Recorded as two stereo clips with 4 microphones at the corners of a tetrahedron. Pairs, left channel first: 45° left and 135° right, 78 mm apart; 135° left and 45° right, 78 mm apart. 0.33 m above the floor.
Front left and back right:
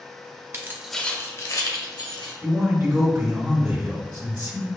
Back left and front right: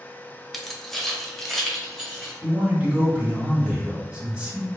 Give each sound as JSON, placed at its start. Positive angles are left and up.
{"t": 0.5, "sound": "keys jangling", "azimuth_deg": -140, "distance_m": 0.7}
{"t": 2.4, "sound": "a man speaking", "azimuth_deg": -105, "distance_m": 1.7}